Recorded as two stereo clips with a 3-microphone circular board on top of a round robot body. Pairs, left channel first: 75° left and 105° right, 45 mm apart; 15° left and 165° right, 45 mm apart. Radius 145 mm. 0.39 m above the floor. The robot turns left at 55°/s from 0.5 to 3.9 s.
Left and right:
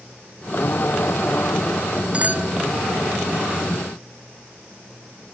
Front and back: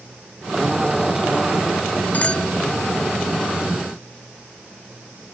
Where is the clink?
40° right; by 2.5 s 60° right.